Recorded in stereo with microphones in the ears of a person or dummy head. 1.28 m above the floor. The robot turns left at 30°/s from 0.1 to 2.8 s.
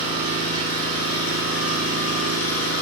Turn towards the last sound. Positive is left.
turn(degrees=75)